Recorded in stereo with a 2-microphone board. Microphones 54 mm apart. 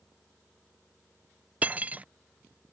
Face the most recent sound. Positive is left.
turn(degrees=-30)  # may be behind; listen again after turning